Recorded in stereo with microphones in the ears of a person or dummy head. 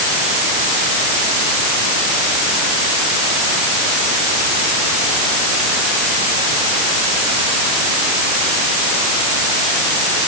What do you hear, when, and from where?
Only background noise.